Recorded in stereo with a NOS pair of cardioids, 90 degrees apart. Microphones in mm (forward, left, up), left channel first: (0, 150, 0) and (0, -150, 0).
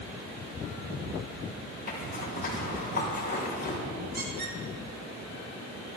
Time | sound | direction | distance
1.9 | a zipper | 30° left | 5 m
4.1 | a squeak | 35° right | 4.5 m